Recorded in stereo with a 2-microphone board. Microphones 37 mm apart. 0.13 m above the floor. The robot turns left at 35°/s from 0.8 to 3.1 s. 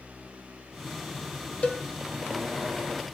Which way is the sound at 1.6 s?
40° left (ahead or behind).